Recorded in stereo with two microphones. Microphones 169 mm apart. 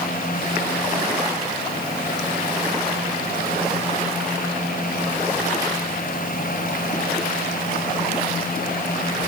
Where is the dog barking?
I don't hear a dog barking.